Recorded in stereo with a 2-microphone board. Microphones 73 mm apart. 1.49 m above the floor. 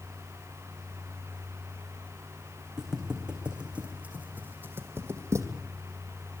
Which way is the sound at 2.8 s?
10° right (ahead or behind).